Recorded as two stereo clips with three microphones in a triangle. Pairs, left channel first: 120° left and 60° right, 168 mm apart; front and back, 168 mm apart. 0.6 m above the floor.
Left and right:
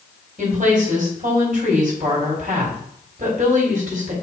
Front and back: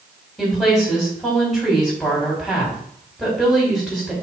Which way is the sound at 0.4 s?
90° right.